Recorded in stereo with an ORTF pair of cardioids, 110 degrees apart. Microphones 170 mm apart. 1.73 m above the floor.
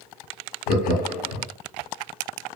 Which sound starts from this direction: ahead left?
Laughter, at 0.7 s.